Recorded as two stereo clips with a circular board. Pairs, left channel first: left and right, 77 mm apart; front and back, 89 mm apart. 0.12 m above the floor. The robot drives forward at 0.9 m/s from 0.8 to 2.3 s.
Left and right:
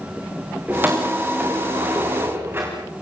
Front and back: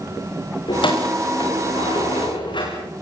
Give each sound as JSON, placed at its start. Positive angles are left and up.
{"t": 0.7, "sound": "keys jangling", "azimuth_deg": -25, "distance_m": 9.5}